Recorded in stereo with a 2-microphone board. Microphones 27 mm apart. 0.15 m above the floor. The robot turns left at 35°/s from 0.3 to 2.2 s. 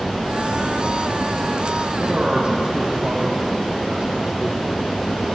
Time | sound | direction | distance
2.0 | a man speaking | 45° right (ahead or behind) | 3.5 m